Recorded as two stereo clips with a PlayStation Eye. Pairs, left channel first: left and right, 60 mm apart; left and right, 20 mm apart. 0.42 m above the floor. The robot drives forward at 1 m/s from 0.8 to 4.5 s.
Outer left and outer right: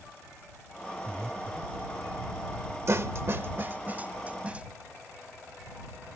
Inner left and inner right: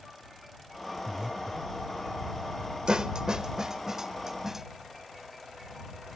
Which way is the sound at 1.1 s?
45° right (ahead or behind).